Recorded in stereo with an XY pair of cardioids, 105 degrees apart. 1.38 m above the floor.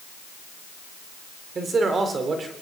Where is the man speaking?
40° right, 3.5 m.